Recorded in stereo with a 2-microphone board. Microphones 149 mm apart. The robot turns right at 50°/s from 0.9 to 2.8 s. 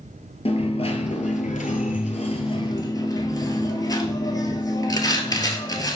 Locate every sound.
0.5 s a dropped coin: 55° left, 0.7 m; by 6.0 s 150° left, 0.7 m